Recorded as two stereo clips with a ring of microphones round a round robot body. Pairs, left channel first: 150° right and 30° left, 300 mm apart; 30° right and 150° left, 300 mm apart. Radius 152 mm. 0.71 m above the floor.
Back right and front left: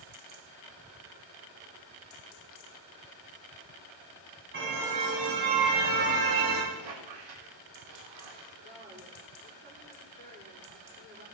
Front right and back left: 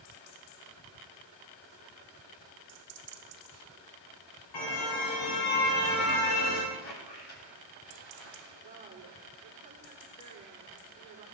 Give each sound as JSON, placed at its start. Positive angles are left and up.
{"t": 4.5, "sound": "a car horn", "azimuth_deg": -25, "distance_m": 3.0}
{"t": 6.7, "sound": "a squeak", "azimuth_deg": 20, "distance_m": 8.5}
{"t": 8.6, "sound": "a woman speaking", "azimuth_deg": 85, "distance_m": 7.0}